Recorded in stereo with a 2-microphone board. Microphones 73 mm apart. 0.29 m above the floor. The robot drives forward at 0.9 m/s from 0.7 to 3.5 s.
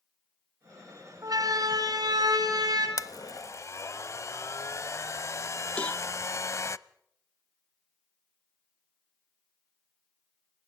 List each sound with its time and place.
1.2 s a siren: 60° right (ahead or behind), 2.5 m; by 2.9 s 65° right (ahead or behind), 4.5 m
3.0 s a blender: 50° left (ahead or behind), 0.5 m; by 6.8 s 45° left (ahead or behind), 0.6 m
5.8 s a cowbell: 20° left (ahead or behind), 0.7 m